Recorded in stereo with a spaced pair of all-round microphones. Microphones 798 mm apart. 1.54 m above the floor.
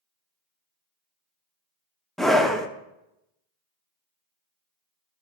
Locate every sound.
2.2 s a scream: centre (ahead or behind), 0.6 m